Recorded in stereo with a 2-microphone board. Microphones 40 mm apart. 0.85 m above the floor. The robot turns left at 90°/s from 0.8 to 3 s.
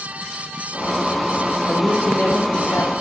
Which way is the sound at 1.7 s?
165° right.